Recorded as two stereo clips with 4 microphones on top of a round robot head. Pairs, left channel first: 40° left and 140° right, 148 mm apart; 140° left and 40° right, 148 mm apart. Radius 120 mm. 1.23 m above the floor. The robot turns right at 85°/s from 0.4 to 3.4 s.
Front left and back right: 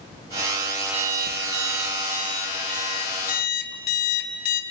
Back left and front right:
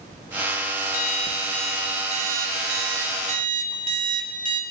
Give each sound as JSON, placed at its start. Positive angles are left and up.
{"t": 0.9, "sound": "an alarm clock", "azimuth_deg": 170, "distance_m": 1.5}